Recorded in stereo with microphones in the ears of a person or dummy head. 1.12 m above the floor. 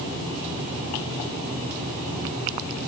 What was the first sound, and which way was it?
Only background noise.